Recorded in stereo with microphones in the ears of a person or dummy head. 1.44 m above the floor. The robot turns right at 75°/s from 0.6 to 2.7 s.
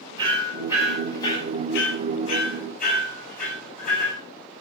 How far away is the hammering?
About 8.5 m.